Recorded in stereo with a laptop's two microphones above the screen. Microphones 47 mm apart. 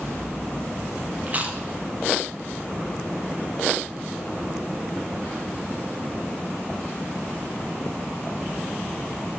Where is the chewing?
35° right (ahead or behind), 0.7 m.